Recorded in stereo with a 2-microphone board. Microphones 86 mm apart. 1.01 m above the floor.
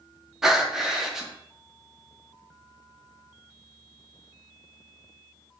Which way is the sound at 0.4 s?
5° right (ahead or behind).